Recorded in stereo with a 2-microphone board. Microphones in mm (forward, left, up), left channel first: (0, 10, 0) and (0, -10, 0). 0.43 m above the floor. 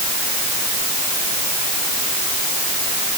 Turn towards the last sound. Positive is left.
No sound to turn to.